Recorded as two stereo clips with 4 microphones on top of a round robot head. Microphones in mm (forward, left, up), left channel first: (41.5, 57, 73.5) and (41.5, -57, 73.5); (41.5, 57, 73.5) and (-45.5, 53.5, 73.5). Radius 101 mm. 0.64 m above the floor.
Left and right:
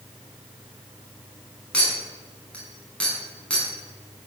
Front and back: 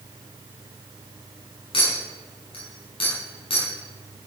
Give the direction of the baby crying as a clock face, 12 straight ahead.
No baby crying in this recording.